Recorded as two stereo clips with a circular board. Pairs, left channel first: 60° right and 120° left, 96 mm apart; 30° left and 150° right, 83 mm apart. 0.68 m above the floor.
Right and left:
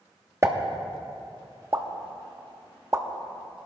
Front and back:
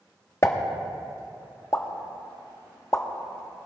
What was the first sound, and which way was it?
A pop, 70° left.